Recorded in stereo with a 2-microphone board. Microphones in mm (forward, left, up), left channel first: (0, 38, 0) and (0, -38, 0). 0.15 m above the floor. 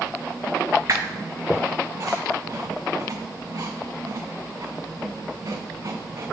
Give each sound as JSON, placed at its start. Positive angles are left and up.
{"t": 0.9, "sound": "a squeak", "side_deg": -45, "distance_m": 0.5}